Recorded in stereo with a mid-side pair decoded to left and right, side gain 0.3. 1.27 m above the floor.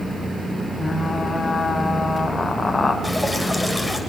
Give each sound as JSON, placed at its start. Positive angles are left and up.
{"t": 0.8, "sound": "frying", "azimuth_deg": 35, "distance_m": 4.0}
{"t": 3.0, "sound": "dripping", "azimuth_deg": 10, "distance_m": 7.0}